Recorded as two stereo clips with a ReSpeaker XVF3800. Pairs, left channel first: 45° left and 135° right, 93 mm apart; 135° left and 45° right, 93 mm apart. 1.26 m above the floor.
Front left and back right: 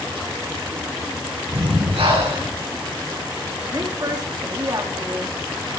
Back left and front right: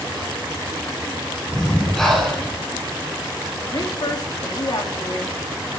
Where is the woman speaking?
175° left, 3 m.